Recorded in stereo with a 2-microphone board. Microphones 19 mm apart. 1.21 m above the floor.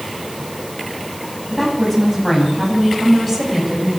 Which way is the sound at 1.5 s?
10° left (ahead or behind).